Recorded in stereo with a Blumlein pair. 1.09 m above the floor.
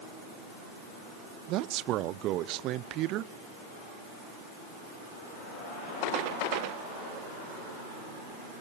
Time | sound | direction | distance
1.5 | a man speaking | 35° right | 0.6 m